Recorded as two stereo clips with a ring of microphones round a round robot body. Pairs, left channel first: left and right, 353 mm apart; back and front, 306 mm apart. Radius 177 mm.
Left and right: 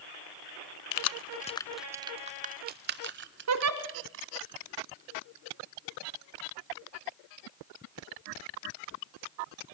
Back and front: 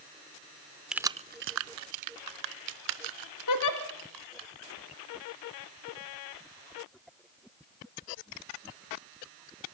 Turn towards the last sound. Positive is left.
turn(degrees=-140)